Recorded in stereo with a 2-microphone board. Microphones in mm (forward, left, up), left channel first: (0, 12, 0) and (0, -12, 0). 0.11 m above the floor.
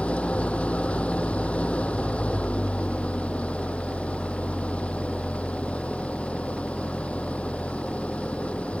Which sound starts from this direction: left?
An engine running, at 0.0 s.